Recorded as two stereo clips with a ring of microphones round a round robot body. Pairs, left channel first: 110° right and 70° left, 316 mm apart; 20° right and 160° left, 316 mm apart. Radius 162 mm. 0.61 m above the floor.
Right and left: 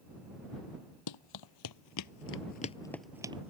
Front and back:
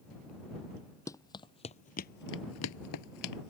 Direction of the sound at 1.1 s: 105° right.